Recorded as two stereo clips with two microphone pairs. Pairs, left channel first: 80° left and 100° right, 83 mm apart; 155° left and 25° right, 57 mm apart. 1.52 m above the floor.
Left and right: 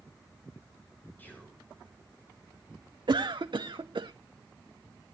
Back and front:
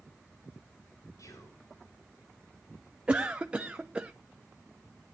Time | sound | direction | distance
1.2 | whispering | 150° left | 6 m
3.1 | a cough | 95° right | 0.7 m